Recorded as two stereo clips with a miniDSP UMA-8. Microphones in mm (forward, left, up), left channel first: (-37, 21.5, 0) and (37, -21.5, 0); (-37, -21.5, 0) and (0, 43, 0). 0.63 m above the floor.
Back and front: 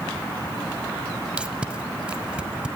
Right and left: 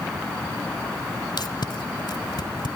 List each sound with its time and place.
1.4 s tape being pulled: 110° right, 1.4 m